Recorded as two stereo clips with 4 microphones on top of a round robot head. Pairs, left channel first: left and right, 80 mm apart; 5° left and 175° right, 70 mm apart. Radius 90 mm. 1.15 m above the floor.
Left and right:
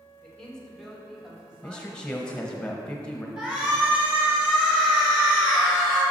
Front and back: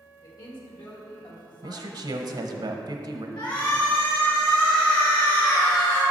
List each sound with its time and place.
0.2 s a man speaking: 10° left, 1.7 m; by 2.5 s 25° right, 2 m
1.6 s a man speaking: 170° left, 0.8 m
3.4 s a shout: 10° right, 1.6 m